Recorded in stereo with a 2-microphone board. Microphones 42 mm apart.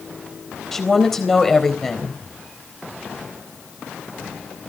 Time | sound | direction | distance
0.7 | a woman speaking | 10° left (ahead or behind) | 4 m